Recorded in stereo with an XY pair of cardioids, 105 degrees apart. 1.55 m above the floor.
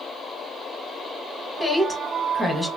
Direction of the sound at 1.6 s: Straight ahead.